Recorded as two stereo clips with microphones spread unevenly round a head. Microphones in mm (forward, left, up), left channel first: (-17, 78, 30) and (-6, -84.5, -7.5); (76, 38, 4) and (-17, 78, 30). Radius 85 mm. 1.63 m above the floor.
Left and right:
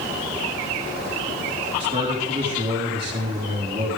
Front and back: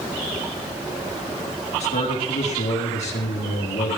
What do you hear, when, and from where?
1.8 s a man speaking: 25° right, 4 m